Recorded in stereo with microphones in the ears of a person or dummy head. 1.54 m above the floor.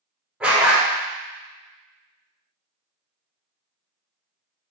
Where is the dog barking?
5° right (ahead or behind), 1.3 m.